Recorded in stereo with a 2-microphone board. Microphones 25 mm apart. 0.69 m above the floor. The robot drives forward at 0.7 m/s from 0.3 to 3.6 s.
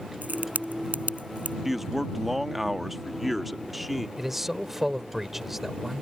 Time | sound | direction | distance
0.2 | a crack | 85° right | ?
1.6 | a man speaking | 5° right (ahead or behind) | ?
4.2 | a man speaking | 10° right (ahead or behind) | ?